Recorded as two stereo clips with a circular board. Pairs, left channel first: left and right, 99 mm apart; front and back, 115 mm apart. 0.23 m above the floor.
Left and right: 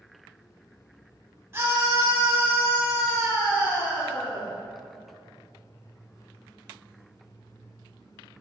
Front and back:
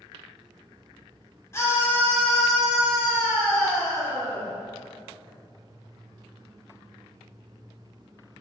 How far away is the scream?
About 1.4 m.